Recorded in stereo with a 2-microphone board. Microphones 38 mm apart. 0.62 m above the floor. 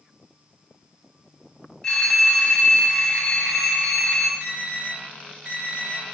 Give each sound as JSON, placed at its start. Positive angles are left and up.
{"t": 1.8, "sound": "a phone ringing", "side_deg": 10, "distance_m": 2.5}
{"t": 4.4, "sound": "an alarm", "side_deg": -20, "distance_m": 4.0}